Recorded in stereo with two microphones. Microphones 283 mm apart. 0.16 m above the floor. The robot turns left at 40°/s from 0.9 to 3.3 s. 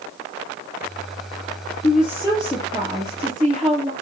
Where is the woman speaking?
35° left, 3 m; by 3.9 s 20° right, 3 m.